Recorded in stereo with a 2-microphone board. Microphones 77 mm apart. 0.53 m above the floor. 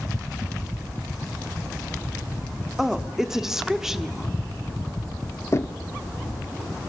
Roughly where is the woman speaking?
Centre.